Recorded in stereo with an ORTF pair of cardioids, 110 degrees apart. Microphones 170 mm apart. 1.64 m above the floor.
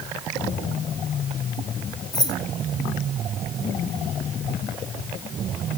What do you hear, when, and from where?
2.1 s keys jangling: 25° left, 1.9 m